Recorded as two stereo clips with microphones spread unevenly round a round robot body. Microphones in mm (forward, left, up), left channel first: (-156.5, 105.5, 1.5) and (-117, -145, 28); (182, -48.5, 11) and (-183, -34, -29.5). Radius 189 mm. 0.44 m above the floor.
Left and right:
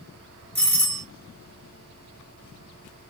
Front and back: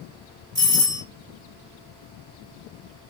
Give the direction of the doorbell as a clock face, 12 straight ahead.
7 o'clock.